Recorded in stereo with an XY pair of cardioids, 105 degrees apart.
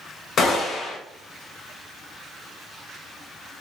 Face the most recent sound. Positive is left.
turn(degrees=55)